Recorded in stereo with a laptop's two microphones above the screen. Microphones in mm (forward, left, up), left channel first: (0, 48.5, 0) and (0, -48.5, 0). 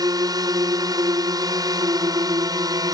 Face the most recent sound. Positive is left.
turn(degrees=-40)  # may be behind; listen again after turning